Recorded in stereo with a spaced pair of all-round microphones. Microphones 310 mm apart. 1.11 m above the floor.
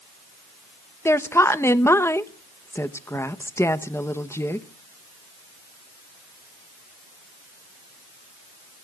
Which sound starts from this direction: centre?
A woman speaking, at 1.1 s.